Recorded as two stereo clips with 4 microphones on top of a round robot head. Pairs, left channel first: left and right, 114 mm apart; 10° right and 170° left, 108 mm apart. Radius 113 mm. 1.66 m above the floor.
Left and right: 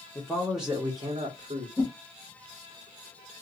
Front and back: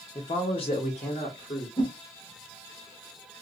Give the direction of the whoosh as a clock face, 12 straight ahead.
11 o'clock.